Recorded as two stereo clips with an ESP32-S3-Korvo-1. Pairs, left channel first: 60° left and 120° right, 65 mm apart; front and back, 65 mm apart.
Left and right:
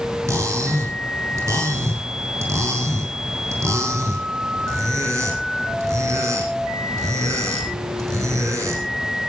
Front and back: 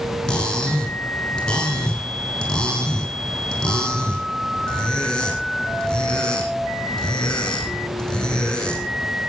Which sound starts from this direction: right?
Cutlery clinking, at 0.3 s.